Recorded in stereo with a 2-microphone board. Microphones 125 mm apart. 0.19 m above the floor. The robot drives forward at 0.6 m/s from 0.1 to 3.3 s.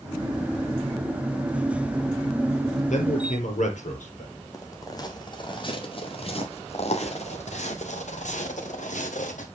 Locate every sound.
2.9 s a man speaking: 75° left (ahead or behind), 3.5 m
4.5 s footsteps: 25° left (ahead or behind), 2.5 m; by 9.5 s 80° left, 3 m